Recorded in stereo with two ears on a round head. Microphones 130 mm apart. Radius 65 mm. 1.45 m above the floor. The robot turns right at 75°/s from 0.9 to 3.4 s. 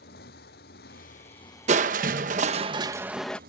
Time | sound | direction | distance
0.0 | a motorcycle | 105° left | ?
1.7 | crushing | 120° right | ?